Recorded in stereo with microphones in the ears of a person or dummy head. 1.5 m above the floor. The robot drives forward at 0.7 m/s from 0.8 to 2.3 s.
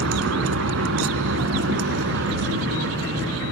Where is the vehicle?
75° right (ahead or behind); by 3.5 s 65° right (ahead or behind).